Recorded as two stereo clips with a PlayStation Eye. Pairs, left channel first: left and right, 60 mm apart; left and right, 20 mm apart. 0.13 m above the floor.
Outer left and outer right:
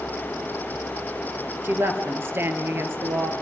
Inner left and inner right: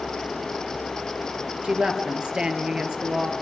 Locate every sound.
1.6 s a woman speaking: 40° right (ahead or behind), 2.5 m